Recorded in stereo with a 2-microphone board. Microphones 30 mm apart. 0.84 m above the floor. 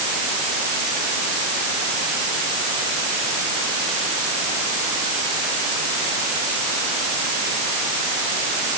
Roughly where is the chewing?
No chewing in this recording.